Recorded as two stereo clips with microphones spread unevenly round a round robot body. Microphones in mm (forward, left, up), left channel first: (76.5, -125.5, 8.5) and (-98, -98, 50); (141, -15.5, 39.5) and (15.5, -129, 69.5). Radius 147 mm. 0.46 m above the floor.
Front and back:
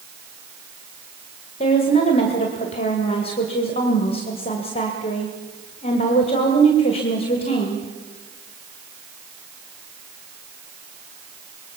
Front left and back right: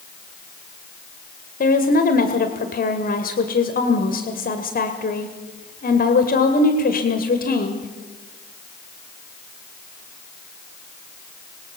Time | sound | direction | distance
1.6 | a woman speaking | 40° left | 1.9 m